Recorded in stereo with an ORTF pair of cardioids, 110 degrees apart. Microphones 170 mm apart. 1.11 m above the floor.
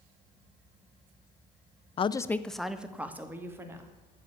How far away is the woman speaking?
About 0.5 m.